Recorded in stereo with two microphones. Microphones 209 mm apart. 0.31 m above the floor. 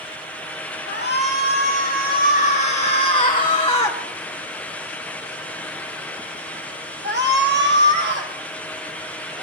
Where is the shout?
60° left (ahead or behind), 3 m; by 9.4 s 65° right (ahead or behind), 3.5 m.